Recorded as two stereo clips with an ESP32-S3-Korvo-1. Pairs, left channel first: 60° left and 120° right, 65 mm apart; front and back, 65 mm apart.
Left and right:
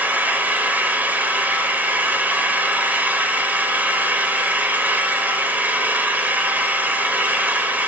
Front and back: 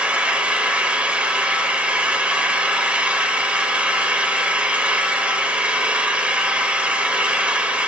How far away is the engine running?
About 0.9 m.